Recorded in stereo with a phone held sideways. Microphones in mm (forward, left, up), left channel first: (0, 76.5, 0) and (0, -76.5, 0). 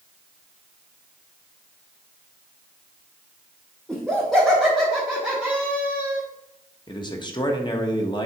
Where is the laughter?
Centre (ahead or behind), 2 m; by 6.2 s 15° right (ahead or behind), 1.2 m.